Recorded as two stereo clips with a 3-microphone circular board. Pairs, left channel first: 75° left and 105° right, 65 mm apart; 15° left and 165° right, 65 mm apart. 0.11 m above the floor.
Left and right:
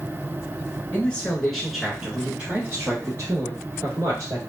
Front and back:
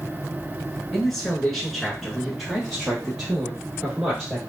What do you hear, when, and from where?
0.9 s a man speaking: 90° left, 1.3 m; by 4.4 s 80° right, 2.5 m